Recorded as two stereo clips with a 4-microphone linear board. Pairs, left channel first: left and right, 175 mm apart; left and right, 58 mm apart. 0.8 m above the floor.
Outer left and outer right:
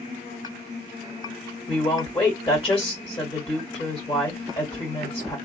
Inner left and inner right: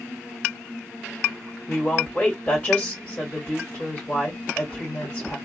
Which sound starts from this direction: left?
A woman speaking, at 1.7 s.